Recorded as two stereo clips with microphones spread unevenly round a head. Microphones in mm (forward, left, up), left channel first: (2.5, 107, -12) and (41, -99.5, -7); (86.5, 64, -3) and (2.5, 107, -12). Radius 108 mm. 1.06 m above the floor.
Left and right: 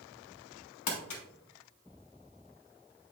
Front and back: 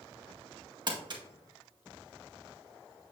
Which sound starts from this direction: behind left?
Crumpling, at 0.9 s.